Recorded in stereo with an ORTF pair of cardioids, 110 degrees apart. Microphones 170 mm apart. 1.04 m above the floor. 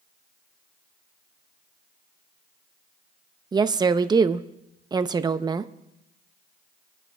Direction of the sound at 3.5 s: 25° right.